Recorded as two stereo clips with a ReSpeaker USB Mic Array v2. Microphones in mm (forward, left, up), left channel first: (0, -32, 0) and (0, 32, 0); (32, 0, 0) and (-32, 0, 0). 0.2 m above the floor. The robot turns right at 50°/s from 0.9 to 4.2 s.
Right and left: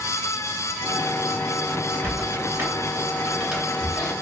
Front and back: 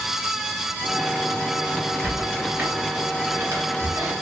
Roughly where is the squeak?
Left.